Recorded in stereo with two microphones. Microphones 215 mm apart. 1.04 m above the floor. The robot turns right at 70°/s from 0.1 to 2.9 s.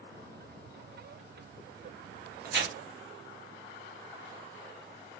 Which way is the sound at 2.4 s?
45° right (ahead or behind).